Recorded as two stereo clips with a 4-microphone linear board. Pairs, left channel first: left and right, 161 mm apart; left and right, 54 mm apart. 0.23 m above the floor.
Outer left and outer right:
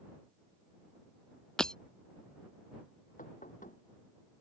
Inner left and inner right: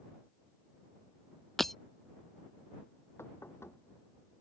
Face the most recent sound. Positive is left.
turn(degrees=55)  # may be behind; listen again after turning